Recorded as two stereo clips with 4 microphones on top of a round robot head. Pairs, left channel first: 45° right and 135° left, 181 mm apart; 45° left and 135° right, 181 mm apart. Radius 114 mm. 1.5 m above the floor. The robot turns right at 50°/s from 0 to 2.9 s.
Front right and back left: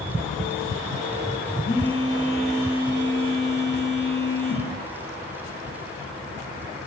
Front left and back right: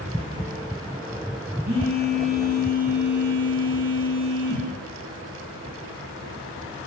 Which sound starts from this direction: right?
A phone buzzing, at 1.6 s.